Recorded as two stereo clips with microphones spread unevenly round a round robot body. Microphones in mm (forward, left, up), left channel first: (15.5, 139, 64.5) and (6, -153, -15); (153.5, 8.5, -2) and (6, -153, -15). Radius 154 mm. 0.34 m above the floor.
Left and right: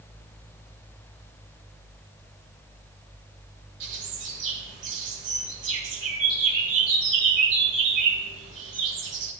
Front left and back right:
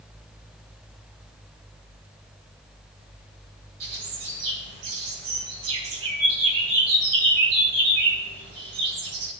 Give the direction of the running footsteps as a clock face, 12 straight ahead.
No running footsteps in this recording.